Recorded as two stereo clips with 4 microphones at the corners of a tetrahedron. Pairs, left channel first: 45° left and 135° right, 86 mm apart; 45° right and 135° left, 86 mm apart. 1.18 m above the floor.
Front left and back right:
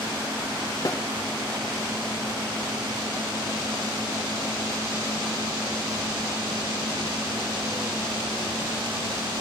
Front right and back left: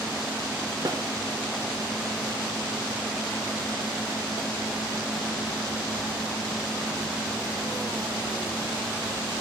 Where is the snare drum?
90° left, 2.5 m.